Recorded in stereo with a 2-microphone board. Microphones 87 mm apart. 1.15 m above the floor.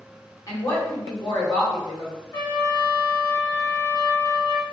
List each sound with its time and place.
0.5 s a woman speaking: 40° left (ahead or behind), 1.3 m
2.3 s a trumpet: 30° left (ahead or behind), 1.5 m